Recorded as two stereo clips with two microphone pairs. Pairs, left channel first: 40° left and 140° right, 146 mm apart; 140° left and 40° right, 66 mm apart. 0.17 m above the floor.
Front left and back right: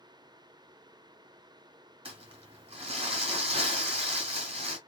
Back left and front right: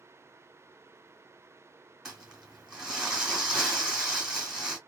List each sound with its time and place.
2.0 s crumpling: 120° right, 1.8 m